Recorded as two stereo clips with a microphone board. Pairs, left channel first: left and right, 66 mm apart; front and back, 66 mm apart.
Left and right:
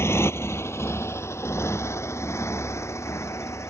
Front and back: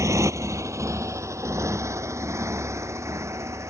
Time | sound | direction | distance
0.0 | a motorcycle | 140° left | ?